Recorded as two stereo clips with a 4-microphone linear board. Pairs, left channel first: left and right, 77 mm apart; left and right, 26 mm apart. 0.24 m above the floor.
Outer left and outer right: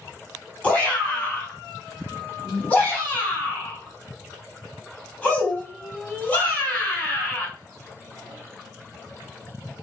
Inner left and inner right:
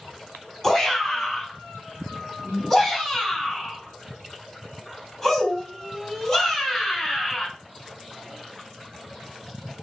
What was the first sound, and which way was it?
A shout, 20° left (ahead or behind).